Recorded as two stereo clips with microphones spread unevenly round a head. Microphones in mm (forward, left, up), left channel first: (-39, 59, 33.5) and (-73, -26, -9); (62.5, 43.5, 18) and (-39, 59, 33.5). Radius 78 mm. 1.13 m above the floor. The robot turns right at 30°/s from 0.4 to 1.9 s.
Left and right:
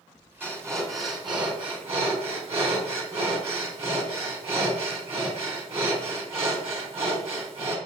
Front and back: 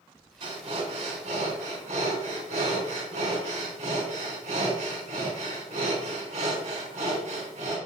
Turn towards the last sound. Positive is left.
turn(degrees=-140)